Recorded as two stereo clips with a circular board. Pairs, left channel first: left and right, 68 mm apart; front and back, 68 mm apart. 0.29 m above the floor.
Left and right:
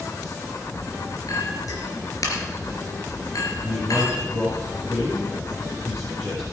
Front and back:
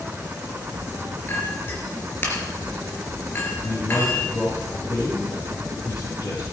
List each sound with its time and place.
1.3 s a clink: 60° left, 3 m
3.6 s a man speaking: 40° left, 6 m